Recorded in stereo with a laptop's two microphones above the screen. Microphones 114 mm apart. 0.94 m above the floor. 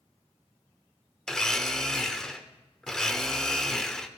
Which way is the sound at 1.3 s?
5° left (ahead or behind).